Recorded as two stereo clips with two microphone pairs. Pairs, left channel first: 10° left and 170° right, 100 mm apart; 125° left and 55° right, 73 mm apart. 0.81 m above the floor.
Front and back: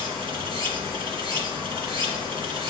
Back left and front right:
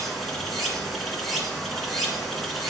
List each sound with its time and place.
0.0 s running water: 145° right, 1.7 m